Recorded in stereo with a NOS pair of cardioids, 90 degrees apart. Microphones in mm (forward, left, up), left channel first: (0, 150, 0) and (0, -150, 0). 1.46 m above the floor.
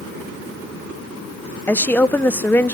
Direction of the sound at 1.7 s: 5° left.